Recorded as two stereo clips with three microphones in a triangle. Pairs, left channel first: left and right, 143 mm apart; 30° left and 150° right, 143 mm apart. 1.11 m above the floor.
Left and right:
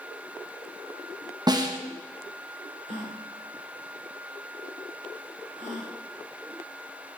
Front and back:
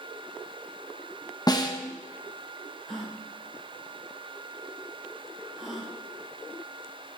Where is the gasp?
60° right, 1.8 m.